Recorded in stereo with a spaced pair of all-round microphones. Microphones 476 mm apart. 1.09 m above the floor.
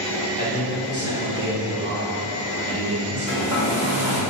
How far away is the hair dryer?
About 1.7 m.